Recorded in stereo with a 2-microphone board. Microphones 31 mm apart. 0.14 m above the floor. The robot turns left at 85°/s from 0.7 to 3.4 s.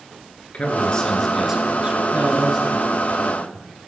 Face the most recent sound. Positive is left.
turn(degrees=115)